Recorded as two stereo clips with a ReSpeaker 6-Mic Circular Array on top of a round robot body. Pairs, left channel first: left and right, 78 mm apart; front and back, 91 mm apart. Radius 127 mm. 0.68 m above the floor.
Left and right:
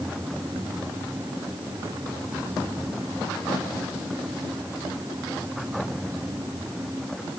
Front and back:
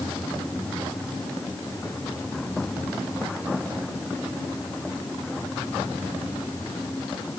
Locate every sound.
Only background noise.